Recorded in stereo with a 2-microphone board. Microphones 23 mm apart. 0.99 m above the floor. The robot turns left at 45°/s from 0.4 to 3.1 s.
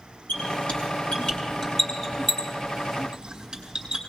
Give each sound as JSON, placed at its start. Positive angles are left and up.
{"t": 0.3, "sound": "a squeak", "side_deg": 85, "distance_m": 5.5}